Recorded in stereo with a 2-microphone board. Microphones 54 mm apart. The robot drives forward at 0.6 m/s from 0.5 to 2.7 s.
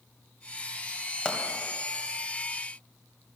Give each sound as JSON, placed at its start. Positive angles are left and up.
{"t": 1.2, "sound": "a pop", "side_deg": 15, "distance_m": 2.0}